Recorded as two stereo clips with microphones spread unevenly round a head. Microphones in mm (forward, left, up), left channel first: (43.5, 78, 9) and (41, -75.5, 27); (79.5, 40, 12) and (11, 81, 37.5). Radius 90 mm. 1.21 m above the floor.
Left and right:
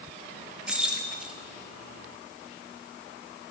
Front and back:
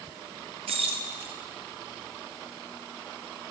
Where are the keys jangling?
175° right, 1.5 m.